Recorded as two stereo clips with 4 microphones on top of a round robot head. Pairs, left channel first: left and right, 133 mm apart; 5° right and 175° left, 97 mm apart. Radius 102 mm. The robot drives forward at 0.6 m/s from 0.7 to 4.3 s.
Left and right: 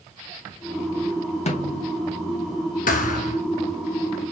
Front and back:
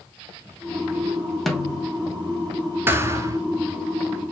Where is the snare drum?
85° left, 1.8 m; by 1.9 s 95° left, 1.8 m.